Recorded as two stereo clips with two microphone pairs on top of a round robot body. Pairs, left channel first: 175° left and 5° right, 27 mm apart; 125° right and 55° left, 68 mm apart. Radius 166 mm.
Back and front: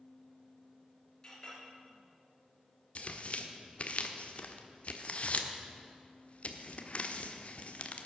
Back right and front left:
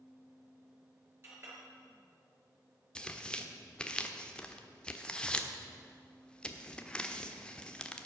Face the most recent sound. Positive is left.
turn(degrees=160)